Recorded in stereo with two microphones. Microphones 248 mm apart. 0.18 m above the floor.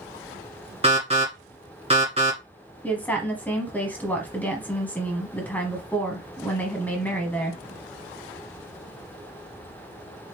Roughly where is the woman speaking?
Centre.